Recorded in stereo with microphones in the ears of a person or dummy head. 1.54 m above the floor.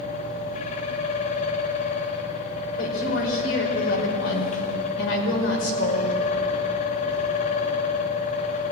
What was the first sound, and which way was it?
A fan, 40° left (ahead or behind).